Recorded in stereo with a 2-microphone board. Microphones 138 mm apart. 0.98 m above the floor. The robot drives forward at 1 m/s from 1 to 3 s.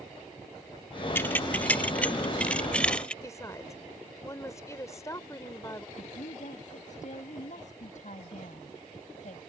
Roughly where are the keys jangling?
Centre.